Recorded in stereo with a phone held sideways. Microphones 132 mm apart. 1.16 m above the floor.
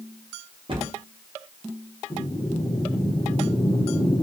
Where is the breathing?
40° left (ahead or behind), 1.1 m.